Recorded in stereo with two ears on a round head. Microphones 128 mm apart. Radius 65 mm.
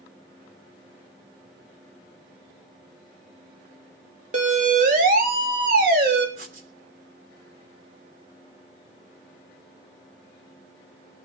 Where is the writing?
70° right (ahead or behind), 3 m.